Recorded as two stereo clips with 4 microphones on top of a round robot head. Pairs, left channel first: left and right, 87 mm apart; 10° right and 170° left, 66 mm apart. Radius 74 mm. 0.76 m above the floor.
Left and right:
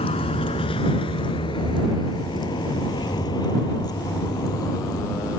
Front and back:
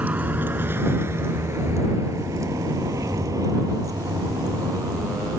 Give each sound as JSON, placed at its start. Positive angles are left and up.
{"t": 0.0, "sound": "a vehicle", "azimuth_deg": 100}